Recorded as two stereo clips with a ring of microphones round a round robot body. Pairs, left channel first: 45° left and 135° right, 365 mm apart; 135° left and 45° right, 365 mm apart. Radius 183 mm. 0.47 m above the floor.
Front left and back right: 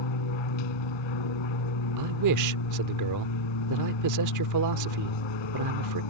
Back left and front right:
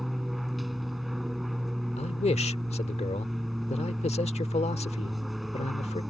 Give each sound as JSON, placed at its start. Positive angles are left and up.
{"t": 0.0, "sound": "an aircraft", "azimuth_deg": 45}
{"t": 2.0, "sound": "a man speaking", "azimuth_deg": -155}